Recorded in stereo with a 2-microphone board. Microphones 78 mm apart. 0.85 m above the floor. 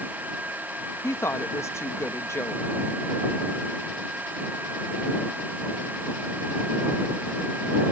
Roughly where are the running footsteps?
No running footsteps in this recording.